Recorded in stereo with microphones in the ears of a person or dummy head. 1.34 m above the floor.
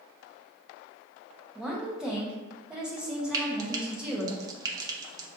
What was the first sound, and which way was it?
A woman speaking, 5° right (ahead or behind).